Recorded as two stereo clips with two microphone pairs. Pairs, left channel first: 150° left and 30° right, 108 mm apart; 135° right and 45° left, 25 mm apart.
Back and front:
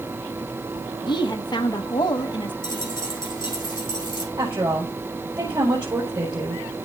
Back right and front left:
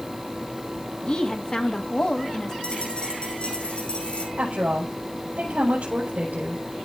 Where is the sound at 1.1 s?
175° right, 1.2 m.